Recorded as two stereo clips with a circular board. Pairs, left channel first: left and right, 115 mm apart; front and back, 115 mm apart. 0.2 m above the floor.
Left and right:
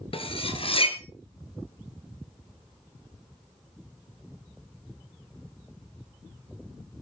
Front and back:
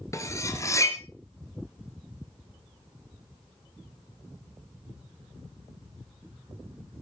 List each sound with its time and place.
0.1 s cutlery clinking: 60° left, 2.0 m